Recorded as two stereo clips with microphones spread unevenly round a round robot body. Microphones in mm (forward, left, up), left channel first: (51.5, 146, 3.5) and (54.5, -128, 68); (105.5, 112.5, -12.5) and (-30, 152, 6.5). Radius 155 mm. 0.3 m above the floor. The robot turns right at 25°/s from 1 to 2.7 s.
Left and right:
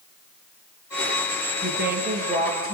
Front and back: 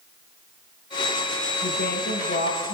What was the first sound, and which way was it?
A woman speaking, 40° right.